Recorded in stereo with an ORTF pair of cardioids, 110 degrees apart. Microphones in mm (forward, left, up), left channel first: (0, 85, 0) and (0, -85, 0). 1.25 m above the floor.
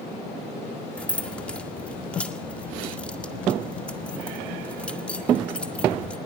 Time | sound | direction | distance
1.0 | keys jangling | 5° left | 1.8 m